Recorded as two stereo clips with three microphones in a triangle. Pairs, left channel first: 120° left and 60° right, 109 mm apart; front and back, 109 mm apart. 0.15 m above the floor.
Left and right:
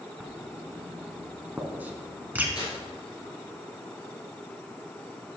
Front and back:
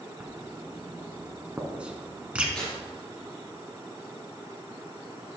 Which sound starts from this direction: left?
Tearing paper, at 2.5 s.